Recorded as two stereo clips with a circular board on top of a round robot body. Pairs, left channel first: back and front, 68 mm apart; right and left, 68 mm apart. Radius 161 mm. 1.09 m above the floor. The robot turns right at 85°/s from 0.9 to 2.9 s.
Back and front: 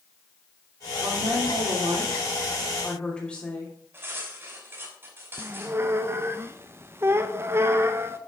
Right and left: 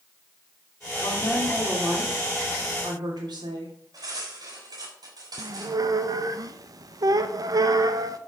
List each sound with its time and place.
1.0 s a woman speaking: 55° right, 3 m; by 3.7 s 105° left, 3 m
3.9 s cutlery clinking: 60° left, 5 m
5.4 s a squeak: 55° left, 0.9 m